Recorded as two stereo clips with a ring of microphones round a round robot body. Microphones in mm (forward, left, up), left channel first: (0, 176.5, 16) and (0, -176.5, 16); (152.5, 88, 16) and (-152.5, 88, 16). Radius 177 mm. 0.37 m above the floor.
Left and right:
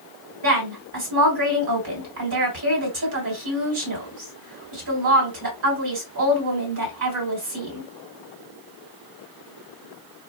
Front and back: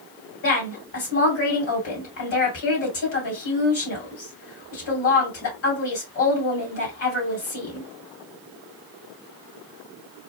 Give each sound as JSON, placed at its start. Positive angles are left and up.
{"t": 0.4, "sound": "a woman speaking", "azimuth_deg": -45, "distance_m": 3.0}